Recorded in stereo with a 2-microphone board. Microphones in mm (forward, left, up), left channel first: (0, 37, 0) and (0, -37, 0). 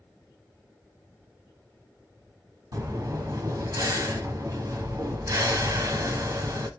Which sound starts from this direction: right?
Breathing, at 2.7 s.